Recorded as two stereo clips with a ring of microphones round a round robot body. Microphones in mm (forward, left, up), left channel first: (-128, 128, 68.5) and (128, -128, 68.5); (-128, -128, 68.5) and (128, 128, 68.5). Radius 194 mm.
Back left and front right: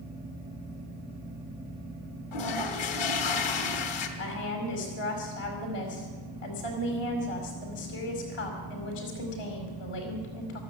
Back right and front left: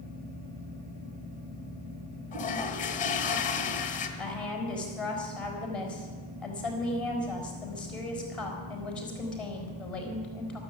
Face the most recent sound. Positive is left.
turn(degrees=140)